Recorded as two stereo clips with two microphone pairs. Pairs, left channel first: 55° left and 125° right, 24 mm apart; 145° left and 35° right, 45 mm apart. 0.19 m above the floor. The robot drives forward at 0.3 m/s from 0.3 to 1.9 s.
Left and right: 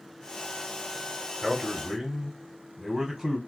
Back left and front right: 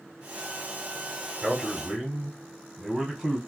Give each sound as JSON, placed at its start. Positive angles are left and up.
{"t": 1.4, "sound": "a man speaking", "azimuth_deg": -80, "distance_m": 1.1}